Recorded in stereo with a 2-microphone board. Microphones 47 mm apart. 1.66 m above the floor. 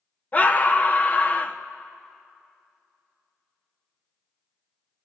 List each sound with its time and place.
0.3 s a scream: 35° left (ahead or behind), 1.5 m